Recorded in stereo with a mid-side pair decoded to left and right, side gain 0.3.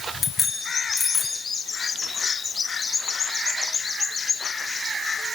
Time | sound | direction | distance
0.2 | a bicycle bell | 55° left | 7 m